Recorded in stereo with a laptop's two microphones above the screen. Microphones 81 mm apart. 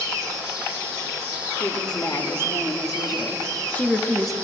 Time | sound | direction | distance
1.6 | a woman speaking | 65° left (ahead or behind) | 1.8 m